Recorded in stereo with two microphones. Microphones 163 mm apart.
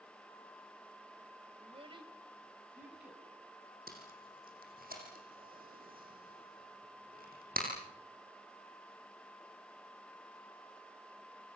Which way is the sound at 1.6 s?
40° right (ahead or behind).